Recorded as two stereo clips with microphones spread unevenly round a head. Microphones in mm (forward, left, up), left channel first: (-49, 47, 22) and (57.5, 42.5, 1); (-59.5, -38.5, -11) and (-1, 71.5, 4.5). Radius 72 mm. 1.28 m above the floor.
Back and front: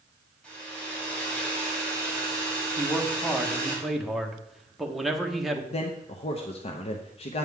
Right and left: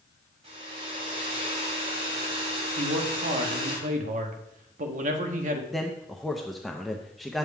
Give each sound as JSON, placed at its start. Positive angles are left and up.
{"t": 0.4, "sound": "a hair dryer", "azimuth_deg": 100, "distance_m": 4.0}
{"t": 2.8, "sound": "a man speaking", "azimuth_deg": 85, "distance_m": 1.3}
{"t": 5.7, "sound": "a man speaking", "azimuth_deg": 150, "distance_m": 0.8}